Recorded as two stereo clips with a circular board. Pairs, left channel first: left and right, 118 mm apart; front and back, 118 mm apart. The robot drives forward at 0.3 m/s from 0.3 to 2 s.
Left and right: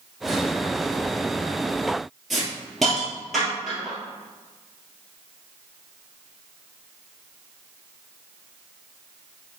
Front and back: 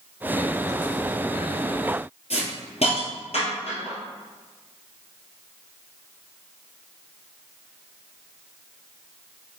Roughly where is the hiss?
Ahead.